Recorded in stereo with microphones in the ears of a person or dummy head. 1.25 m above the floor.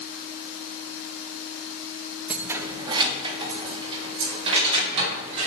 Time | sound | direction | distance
2.3 | keys jangling | 5° right (ahead or behind) | 1.0 m